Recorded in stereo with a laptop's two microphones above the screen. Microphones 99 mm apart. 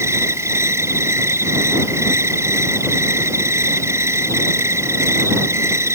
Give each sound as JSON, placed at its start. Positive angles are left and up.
{"t": 0.0, "sound": "an insect", "side_deg": -25}